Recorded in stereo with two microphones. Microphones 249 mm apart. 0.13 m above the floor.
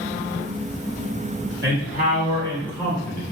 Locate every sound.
1.6 s a man speaking: 40° right (ahead or behind), 1.6 m; by 3.2 s 10° left (ahead or behind), 1.5 m